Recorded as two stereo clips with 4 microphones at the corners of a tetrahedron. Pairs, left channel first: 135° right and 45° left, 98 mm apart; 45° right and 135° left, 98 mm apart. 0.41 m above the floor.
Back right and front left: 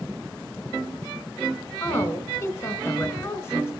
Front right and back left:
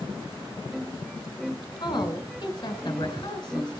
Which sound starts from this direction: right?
A woman speaking, at 1.8 s.